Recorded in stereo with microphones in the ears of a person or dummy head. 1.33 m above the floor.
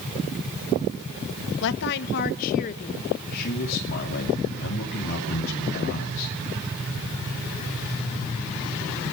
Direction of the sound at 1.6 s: 60° left (ahead or behind).